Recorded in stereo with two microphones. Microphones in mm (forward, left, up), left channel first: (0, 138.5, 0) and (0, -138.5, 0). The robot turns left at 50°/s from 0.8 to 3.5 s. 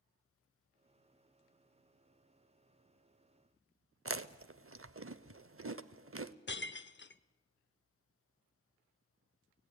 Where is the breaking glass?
40° left (ahead or behind), 0.5 m.